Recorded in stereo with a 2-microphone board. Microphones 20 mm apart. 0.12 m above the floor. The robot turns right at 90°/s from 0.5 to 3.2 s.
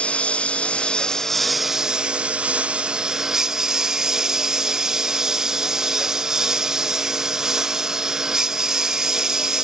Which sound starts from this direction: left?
A lawn mower, at 0.0 s.